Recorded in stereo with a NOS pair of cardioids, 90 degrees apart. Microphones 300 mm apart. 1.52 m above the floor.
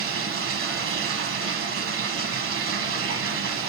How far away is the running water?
About 1.1 m.